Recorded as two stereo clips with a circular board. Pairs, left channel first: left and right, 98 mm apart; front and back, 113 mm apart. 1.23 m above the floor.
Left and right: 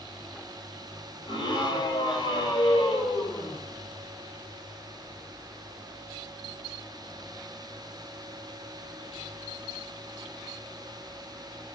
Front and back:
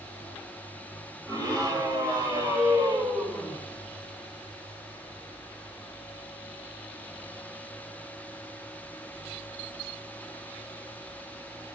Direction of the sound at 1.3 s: 125° left.